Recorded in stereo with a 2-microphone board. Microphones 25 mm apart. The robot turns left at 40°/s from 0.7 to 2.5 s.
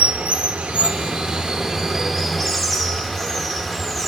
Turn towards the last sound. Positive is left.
turn(degrees=165)